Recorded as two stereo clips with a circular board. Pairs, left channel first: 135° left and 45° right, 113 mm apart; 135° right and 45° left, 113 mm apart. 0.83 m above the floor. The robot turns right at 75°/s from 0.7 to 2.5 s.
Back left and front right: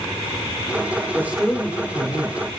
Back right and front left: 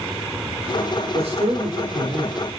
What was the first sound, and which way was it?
A man speaking, 20° left.